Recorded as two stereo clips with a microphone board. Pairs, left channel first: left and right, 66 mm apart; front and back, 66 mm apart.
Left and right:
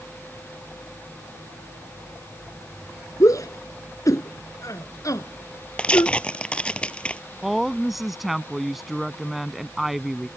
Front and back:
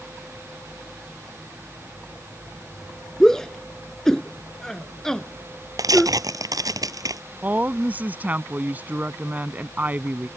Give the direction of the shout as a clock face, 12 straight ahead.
9 o'clock.